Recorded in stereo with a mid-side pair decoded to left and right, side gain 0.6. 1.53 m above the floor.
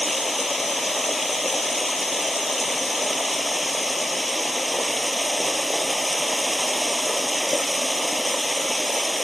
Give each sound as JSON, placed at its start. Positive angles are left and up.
{"t": 0.0, "sound": "running water", "azimuth_deg": 10}